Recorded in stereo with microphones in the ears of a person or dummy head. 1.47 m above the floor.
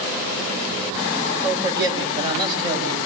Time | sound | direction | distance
1.4 | a man speaking | 20° right (ahead or behind) | 7.5 m